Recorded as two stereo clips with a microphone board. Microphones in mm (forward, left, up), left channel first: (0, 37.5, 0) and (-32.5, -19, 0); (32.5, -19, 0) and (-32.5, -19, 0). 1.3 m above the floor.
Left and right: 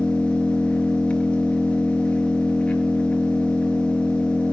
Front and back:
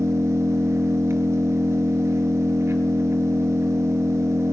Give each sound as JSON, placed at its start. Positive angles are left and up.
{"t": 0.0, "sound": "an engine running", "azimuth_deg": 130, "distance_m": 5.0}